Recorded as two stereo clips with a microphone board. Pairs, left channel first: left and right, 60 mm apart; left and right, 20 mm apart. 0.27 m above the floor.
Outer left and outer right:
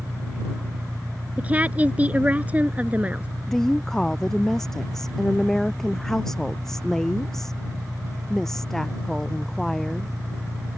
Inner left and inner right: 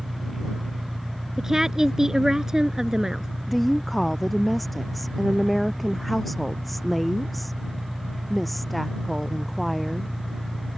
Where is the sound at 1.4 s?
25° right (ahead or behind).